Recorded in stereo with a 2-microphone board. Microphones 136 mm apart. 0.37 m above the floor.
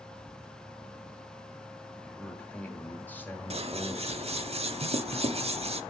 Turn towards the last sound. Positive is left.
turn(degrees=-55)  # may be behind; listen again after turning